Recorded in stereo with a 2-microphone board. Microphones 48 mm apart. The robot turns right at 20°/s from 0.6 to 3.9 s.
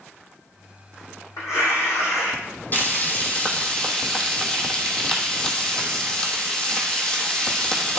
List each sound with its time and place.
1.4 s tearing paper: 75° left (ahead or behind), 3.5 m; by 2.4 s 80° left, 3.5 m
2.7 s frying: 40° left (ahead or behind), 1.3 m; by 8.0 s 20° left (ahead or behind), 1.3 m